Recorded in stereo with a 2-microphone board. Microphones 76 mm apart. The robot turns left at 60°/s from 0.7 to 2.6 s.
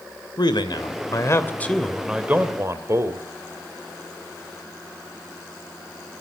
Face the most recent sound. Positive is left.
turn(degrees=-40)